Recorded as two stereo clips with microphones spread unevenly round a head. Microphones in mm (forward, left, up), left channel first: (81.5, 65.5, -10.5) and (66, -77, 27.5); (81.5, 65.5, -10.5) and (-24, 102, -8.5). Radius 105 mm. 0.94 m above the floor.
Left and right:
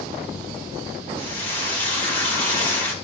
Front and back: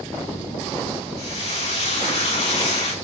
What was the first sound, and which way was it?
Frying, 5° left.